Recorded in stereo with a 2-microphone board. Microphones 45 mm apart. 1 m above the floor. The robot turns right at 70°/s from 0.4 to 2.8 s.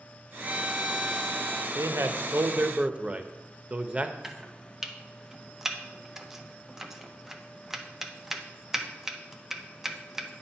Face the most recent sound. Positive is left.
turn(degrees=-5)  # may be behind; listen again after turning